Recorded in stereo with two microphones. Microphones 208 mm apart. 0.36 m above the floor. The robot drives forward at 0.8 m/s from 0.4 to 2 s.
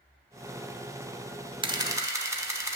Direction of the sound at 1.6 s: 25° right (ahead or behind).